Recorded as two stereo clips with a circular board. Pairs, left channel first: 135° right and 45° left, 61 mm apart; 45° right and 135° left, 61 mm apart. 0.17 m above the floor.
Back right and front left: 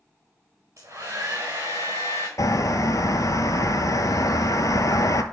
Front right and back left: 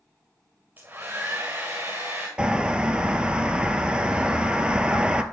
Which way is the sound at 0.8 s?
85° left.